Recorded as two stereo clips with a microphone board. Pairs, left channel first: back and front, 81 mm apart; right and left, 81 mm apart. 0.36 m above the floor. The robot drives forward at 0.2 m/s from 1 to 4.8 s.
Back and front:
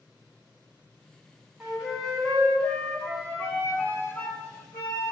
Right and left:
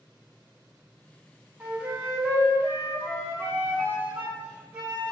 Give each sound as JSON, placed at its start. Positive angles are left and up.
{"t": 1.6, "sound": "a flute", "azimuth_deg": 70, "distance_m": 0.8}